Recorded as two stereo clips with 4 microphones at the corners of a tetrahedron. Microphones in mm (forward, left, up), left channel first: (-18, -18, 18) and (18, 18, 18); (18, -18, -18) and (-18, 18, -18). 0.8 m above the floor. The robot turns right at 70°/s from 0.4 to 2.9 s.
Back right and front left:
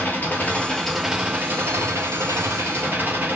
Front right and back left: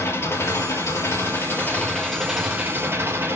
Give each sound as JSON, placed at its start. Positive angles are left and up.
{"t": 0.0, "sound": "an engine running", "azimuth_deg": -80, "distance_m": 4.5}